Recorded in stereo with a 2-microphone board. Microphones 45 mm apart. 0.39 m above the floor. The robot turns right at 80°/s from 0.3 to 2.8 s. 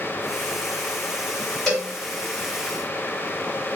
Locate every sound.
1.7 s a cowbell: 10° left (ahead or behind), 1.4 m; by 1.9 s centre (ahead or behind), 1.4 m